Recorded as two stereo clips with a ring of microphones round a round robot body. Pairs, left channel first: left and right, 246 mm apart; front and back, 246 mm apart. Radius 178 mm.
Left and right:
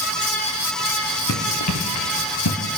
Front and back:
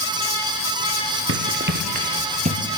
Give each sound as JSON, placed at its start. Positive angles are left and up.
{"t": 1.3, "sound": "running footsteps", "azimuth_deg": 145, "distance_m": 3.0}